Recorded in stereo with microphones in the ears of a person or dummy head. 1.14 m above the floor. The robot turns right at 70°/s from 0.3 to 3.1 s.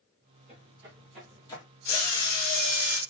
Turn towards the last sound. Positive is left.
turn(degrees=180)